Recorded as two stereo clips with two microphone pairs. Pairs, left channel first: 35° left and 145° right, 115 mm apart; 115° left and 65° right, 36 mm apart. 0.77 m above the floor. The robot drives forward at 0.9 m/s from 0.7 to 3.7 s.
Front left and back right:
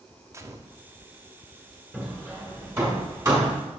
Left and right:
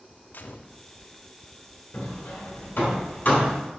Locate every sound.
0.3 s a gunshot: 145° left, 0.5 m; by 0.8 s 150° left, 0.6 m
1.9 s hammering: 135° left, 1.8 m; by 3.5 s 155° left, 3 m